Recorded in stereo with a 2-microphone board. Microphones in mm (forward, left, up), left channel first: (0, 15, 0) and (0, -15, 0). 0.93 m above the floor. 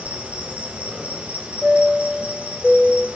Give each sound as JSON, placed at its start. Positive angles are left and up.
{"t": 0.0, "sound": "an insect", "side_deg": -45, "distance_m": 2.5}
{"t": 1.6, "sound": "a chime", "side_deg": -15, "distance_m": 0.7}